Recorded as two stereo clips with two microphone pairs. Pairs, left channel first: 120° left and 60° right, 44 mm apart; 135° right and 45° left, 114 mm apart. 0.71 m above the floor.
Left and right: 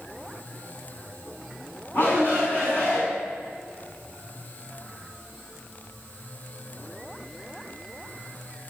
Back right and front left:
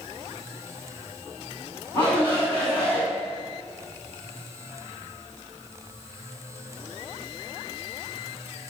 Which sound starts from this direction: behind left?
A shout, at 1.9 s.